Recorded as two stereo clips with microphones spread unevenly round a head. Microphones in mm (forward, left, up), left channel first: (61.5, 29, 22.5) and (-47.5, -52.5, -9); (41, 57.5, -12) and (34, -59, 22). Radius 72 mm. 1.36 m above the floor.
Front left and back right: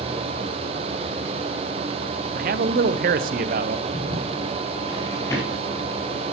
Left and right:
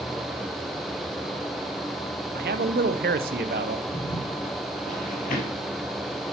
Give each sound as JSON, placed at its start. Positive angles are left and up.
{"t": 2.4, "sound": "a man speaking", "azimuth_deg": -125, "distance_m": 0.5}
{"t": 3.9, "sound": "footsteps", "azimuth_deg": 60, "distance_m": 2.0}